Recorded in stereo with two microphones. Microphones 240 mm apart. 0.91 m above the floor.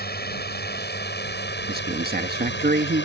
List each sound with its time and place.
0.0 s a drone: 40° left (ahead or behind); by 3.0 s 50° left (ahead or behind)
1.7 s a man speaking: 40° right (ahead or behind)